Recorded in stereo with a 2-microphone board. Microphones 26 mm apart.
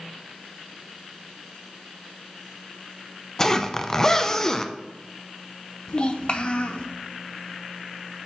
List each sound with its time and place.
3.4 s a zipper: 20° left (ahead or behind), 0.5 m
5.9 s a child speaking: 40° left (ahead or behind), 0.9 m